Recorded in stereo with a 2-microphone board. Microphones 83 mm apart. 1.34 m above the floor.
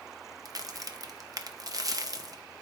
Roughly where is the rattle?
I don't hear a rattle.